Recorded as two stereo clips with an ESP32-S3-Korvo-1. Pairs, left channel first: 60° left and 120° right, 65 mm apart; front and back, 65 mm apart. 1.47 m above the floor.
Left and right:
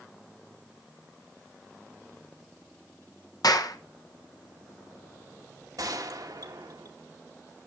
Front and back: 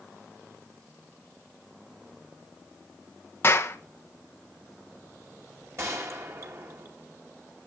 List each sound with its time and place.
3.4 s a clap: 50° left, 1.3 m
5.8 s a gunshot: 140° right, 2 m